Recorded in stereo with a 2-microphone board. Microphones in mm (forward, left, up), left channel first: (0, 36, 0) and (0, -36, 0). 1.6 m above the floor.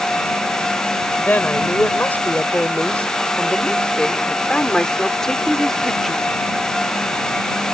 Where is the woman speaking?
25° left (ahead or behind); by 6.3 s centre (ahead or behind).